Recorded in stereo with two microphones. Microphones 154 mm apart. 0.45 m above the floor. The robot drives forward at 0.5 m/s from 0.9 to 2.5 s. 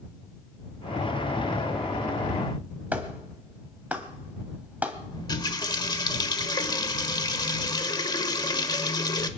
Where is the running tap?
30° left (ahead or behind), 1.1 m.